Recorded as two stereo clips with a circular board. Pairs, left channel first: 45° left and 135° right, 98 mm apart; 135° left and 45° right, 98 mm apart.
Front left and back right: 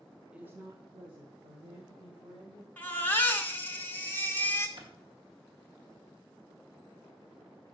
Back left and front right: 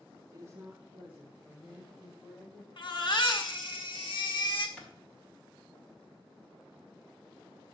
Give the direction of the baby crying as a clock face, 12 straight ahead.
8 o'clock.